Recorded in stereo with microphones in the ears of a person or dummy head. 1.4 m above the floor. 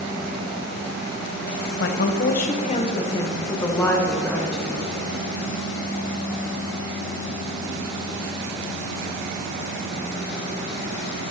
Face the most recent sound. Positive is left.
turn(degrees=5)  # may be behind; listen again after turning